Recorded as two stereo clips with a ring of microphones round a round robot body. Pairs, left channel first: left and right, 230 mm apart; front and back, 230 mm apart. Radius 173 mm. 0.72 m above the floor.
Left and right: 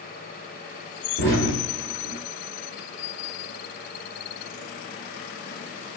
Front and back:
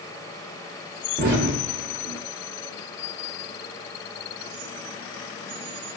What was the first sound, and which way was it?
An explosion, 140° left.